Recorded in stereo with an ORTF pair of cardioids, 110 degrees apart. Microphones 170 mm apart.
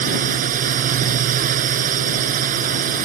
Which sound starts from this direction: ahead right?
A drone, at 0.0 s.